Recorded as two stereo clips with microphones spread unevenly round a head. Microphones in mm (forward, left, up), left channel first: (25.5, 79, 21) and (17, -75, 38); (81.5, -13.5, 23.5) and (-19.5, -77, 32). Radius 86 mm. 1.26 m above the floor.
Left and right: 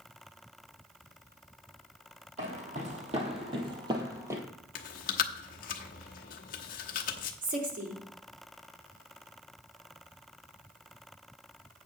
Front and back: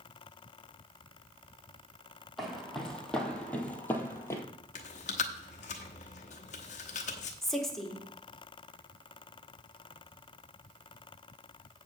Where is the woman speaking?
55° right, 2.5 m.